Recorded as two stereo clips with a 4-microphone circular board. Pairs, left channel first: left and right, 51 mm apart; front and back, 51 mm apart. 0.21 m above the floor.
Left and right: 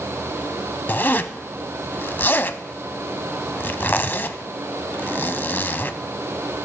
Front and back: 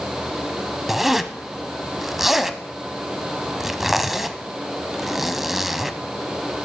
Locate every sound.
0.9 s a zipper: 100° left, 0.5 m